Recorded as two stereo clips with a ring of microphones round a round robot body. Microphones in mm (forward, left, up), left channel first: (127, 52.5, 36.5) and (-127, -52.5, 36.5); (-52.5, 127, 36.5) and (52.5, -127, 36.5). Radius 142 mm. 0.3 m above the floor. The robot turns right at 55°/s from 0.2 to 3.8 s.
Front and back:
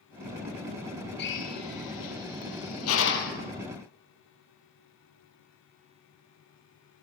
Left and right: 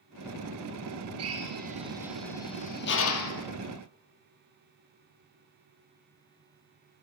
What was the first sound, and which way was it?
A drill, 30° right.